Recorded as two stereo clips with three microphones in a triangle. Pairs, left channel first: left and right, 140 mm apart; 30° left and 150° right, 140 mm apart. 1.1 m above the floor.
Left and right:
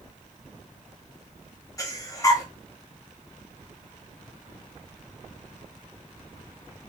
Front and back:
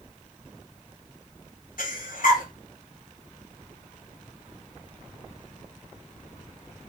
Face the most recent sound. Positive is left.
turn(degrees=25)